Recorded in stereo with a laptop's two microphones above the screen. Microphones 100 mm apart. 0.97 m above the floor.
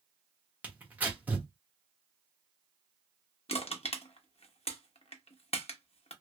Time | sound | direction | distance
0.6 | tearing paper | 15° right (ahead or behind) | 1.1 m
3.5 | crushing | 75° left (ahead or behind) | 0.8 m